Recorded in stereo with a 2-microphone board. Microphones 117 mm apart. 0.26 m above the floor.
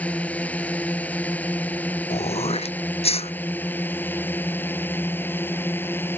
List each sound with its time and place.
0.0 s a drone: 10° left (ahead or behind); by 6.2 s 15° left (ahead or behind)
2.1 s throat clearing: 60° left (ahead or behind)